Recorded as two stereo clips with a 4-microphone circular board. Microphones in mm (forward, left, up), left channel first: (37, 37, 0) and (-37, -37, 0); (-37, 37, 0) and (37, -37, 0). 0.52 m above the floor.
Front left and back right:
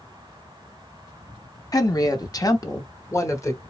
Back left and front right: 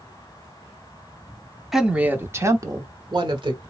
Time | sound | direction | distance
1.7 | a woman speaking | 40° left | 0.8 m